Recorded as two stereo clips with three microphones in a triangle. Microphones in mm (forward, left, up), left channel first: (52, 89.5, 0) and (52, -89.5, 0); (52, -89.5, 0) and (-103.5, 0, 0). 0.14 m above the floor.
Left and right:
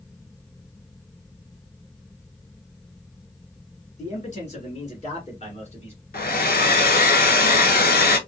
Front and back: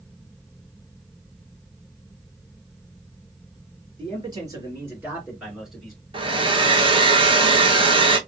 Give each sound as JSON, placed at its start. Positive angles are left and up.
{"t": 4.0, "sound": "a man speaking", "azimuth_deg": 105, "distance_m": 1.9}
{"t": 6.1, "sound": "a hair dryer", "azimuth_deg": 95, "distance_m": 0.6}